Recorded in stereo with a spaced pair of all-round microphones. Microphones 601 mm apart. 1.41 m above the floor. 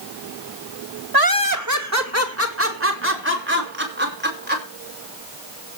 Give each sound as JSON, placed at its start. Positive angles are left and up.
{"t": 1.1, "sound": "laughter", "side_deg": -40, "distance_m": 1.2}